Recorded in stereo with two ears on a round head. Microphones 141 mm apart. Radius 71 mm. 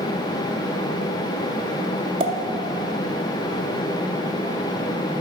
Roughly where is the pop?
Right.